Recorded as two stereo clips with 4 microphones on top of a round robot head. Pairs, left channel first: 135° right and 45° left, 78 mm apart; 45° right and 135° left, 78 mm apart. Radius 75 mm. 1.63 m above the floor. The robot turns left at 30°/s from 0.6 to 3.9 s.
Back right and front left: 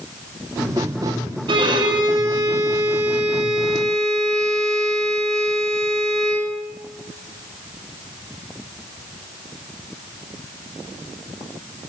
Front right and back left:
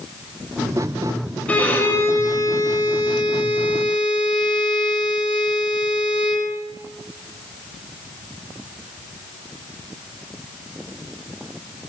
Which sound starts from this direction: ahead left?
A violin, at 1.5 s.